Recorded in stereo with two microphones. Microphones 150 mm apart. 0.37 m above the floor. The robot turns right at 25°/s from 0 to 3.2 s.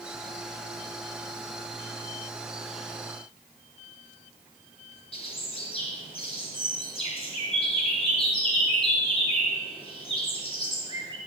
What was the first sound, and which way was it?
A bird, 40° left (ahead or behind).